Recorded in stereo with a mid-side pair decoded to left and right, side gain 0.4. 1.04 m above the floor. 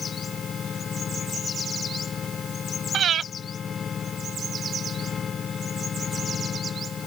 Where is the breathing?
60° right.